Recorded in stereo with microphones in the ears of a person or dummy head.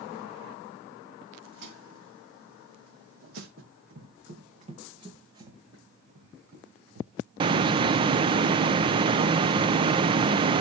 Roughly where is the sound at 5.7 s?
Right.